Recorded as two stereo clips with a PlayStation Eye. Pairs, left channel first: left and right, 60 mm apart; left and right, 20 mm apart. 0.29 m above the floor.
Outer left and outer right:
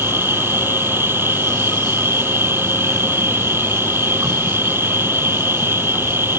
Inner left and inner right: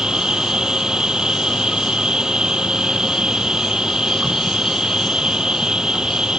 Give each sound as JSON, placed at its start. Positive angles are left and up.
{"t": 0.0, "sound": "an insect", "side_deg": -40}